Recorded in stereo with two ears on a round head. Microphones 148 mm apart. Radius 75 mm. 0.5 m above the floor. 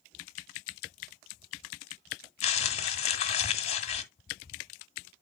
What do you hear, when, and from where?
2.4 s crumpling: 35° left (ahead or behind), 1.2 m